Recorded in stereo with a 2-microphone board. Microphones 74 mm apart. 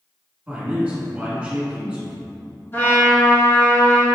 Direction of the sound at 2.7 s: 30° left (ahead or behind).